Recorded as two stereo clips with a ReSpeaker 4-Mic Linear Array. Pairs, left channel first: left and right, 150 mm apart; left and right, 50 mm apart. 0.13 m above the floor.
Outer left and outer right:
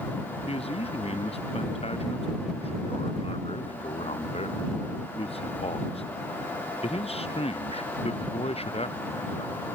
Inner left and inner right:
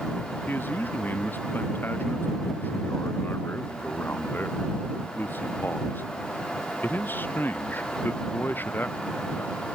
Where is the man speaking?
40° left (ahead or behind).